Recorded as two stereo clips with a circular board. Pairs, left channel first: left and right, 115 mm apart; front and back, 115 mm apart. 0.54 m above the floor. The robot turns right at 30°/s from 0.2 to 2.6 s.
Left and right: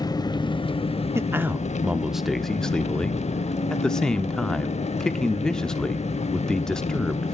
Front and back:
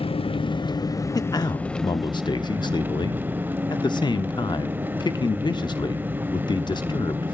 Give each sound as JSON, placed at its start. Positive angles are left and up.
{"t": 0.0, "sound": "an engine running", "azimuth_deg": 35, "distance_m": 0.7}
{"t": 1.1, "sound": "a man speaking", "azimuth_deg": -35, "distance_m": 0.8}